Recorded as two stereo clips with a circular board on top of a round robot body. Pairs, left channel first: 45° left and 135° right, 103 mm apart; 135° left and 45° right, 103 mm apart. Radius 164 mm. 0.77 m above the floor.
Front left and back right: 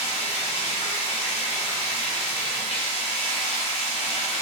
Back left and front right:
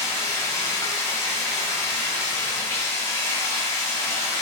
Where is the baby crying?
I don't hear a baby crying.